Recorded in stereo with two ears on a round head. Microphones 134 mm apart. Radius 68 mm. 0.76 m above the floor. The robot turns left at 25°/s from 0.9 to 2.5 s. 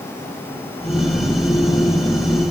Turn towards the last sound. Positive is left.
No sound to turn to.